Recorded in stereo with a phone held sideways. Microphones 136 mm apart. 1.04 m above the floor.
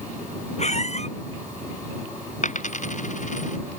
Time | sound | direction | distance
0.6 | a squeak | 55° left (ahead or behind) | ?
2.4 | a dropped coin | 65° left (ahead or behind) | ?